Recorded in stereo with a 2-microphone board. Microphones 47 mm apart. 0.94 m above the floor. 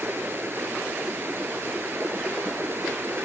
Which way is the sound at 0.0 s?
55° right (ahead or behind).